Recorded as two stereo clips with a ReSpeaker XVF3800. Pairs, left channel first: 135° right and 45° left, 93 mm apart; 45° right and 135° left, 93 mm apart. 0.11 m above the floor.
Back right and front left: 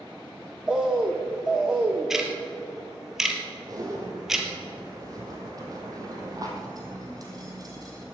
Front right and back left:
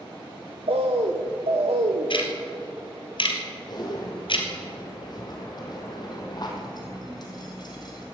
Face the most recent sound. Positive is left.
turn(degrees=-5)